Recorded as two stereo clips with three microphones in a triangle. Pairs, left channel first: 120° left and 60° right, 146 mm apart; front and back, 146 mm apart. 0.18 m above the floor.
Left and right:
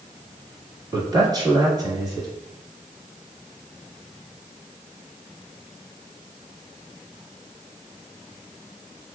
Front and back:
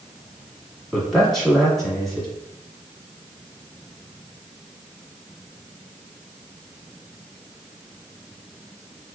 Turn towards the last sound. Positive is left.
turn(degrees=-85)